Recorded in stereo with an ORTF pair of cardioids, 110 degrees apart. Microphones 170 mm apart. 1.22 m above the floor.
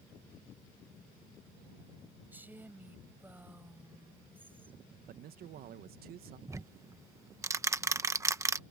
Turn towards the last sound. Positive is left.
turn(degrees=-20)